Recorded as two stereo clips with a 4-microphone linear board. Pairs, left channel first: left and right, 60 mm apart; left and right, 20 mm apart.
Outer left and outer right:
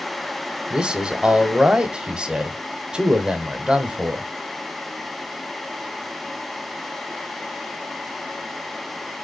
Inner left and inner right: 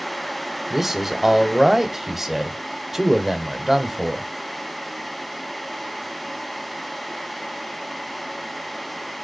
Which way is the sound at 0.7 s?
15° right (ahead or behind).